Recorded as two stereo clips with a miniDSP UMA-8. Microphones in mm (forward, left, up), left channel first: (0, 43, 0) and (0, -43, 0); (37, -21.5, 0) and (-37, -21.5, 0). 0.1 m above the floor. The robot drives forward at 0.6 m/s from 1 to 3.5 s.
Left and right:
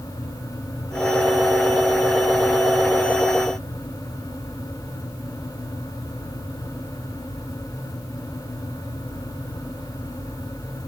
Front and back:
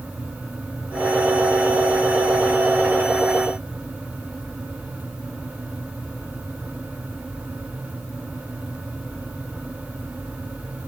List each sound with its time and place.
Only background noise.